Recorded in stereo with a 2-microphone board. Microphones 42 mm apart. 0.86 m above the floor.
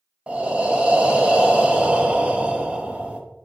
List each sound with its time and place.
0.3 s breathing: 35° right (ahead or behind), 0.8 m